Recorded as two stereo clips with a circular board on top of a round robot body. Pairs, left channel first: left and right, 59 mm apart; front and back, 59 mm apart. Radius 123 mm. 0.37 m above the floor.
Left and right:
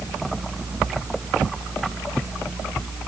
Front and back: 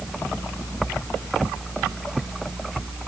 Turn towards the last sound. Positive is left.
No sound to turn to.